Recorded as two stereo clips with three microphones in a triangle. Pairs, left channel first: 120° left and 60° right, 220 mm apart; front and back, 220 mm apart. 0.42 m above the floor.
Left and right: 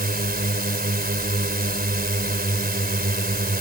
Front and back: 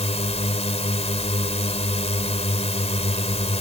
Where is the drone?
45° right.